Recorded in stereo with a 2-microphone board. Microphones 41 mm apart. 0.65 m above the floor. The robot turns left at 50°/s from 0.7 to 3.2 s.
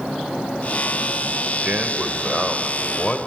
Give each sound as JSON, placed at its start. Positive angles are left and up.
{"t": 1.6, "sound": "a man speaking", "azimuth_deg": -130, "distance_m": 3.0}